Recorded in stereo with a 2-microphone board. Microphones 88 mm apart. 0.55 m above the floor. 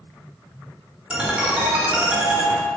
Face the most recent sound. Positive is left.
turn(degrees=-10)  # may be behind; listen again after turning